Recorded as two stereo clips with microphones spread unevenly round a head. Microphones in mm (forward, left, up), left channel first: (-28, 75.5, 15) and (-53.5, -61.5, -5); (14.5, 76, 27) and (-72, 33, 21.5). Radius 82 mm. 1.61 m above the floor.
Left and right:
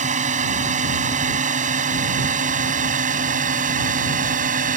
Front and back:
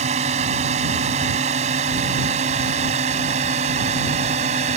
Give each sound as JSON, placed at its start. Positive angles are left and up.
{"t": 0.0, "sound": "a drone", "azimuth_deg": -135}